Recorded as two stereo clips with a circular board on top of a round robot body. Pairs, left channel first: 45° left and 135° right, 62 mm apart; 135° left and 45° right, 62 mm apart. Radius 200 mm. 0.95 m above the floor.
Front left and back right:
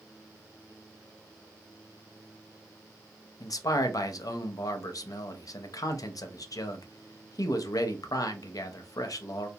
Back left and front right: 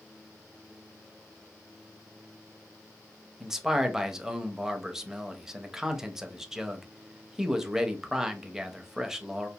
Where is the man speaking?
35° left, 0.7 m.